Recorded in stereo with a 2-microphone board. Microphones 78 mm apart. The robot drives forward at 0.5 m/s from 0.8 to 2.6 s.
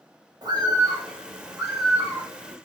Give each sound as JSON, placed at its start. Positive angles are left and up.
{"t": 0.4, "sound": "a bird", "side_deg": -60, "distance_m": 0.9}